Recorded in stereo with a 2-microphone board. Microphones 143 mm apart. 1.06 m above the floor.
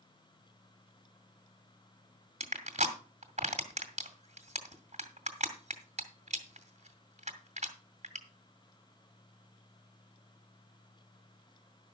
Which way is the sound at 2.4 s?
50° right (ahead or behind).